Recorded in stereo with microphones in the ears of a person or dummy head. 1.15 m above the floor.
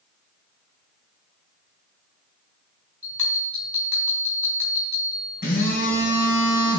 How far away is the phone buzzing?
About 3 m.